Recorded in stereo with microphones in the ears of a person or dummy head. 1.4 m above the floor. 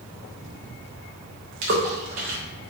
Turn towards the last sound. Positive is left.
turn(degrees=-45)  # may be behind; listen again after turning